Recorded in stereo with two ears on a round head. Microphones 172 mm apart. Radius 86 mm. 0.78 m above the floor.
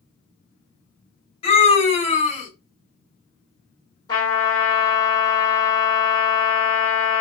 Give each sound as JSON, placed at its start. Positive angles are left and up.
{"t": 1.4, "sound": "a scream", "side_deg": 30, "distance_m": 1.6}
{"t": 4.1, "sound": "a trumpet", "side_deg": 20, "distance_m": 1.6}